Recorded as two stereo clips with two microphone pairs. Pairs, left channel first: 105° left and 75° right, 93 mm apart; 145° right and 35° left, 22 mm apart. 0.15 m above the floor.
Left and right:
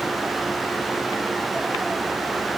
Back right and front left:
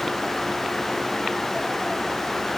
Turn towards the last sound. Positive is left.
No sound to turn to.